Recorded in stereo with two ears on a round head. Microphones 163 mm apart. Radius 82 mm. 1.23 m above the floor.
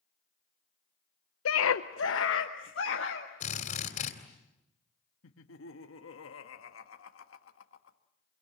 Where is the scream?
85° left, 0.6 m; by 3.3 s 70° left (ahead or behind), 2 m.